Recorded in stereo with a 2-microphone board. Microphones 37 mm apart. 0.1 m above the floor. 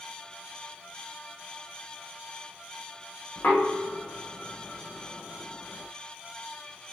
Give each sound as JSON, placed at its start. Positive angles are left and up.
{"t": 3.4, "sound": "knocking", "side_deg": 65, "distance_m": 4.5}